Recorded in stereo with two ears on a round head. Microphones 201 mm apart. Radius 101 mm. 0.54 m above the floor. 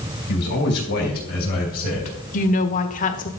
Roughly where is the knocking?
No knocking in this recording.